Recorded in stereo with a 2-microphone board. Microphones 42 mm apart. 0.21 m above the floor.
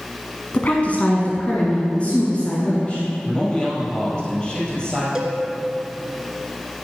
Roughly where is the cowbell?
Centre.